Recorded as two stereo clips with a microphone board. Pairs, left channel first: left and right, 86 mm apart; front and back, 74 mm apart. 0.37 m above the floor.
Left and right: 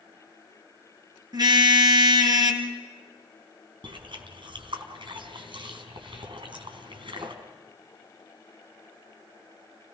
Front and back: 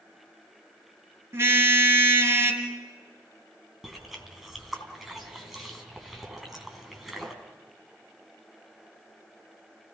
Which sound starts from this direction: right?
Chewing, at 3.8 s.